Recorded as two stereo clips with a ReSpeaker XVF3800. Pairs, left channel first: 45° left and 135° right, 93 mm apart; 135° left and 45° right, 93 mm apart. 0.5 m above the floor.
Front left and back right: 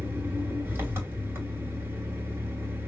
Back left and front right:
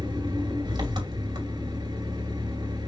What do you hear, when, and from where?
0.0 s an engine running: 75° right, 2.5 m